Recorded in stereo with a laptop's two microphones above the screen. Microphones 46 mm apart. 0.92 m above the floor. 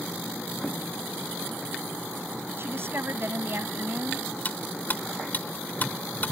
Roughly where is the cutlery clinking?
Left.